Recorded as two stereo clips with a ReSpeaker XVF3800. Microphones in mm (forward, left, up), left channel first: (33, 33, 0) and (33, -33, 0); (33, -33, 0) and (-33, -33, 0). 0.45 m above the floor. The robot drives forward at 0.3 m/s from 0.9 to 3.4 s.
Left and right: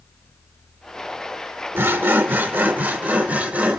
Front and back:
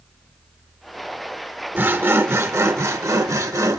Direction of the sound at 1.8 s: 130° right.